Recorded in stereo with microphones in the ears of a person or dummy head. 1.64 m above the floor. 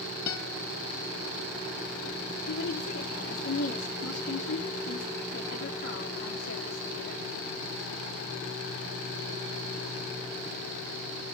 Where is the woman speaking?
70° left (ahead or behind), 3.5 m.